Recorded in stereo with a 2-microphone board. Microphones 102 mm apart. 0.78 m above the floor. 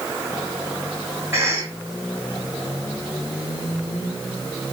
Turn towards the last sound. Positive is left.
turn(degrees=-25)  # may be behind; listen again after turning